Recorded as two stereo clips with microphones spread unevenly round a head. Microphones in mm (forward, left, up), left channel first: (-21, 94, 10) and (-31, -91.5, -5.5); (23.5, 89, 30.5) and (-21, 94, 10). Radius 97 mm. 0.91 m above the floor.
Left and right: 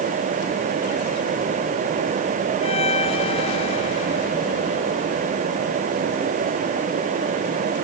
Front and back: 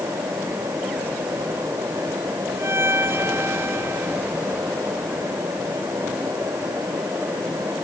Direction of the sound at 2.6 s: 145° left.